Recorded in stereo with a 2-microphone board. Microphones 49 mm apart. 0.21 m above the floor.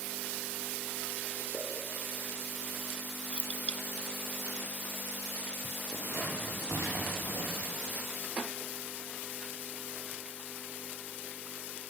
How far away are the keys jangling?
About 0.7 m.